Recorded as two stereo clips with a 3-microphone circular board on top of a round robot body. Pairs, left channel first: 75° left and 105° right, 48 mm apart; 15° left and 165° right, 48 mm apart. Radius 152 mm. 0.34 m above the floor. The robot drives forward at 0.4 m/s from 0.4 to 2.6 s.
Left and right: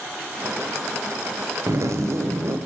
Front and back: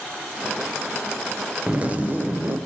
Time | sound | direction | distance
1.7 | a zipper | 100° right | 0.9 m